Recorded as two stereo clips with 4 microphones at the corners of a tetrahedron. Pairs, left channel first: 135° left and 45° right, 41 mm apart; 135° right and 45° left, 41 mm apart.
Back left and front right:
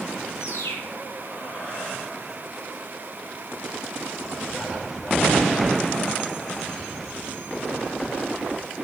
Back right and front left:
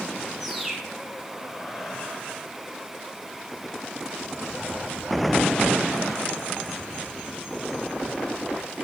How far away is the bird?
About 1.6 m.